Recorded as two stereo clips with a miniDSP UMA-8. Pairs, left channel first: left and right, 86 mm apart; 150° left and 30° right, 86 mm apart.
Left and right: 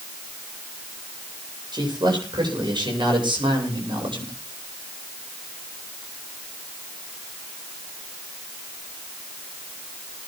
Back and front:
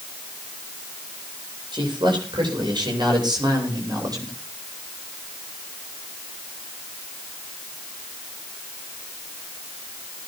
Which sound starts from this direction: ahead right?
A man speaking, at 1.7 s.